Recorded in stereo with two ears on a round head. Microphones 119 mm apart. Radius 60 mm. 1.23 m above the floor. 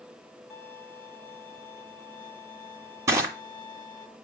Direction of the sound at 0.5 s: 15° left (ahead or behind).